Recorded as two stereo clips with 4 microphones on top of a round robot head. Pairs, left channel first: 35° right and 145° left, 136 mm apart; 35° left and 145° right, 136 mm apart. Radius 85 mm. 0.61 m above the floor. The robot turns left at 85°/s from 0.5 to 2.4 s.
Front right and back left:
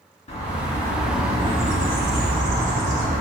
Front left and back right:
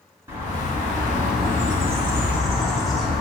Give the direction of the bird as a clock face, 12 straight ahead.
3 o'clock.